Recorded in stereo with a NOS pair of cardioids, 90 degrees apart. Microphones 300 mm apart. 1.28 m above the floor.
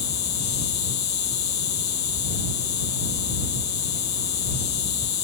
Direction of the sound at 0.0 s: 60° left.